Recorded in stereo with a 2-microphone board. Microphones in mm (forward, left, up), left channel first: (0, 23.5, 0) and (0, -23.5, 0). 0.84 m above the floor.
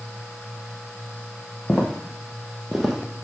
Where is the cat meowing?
I don't hear a cat meowing.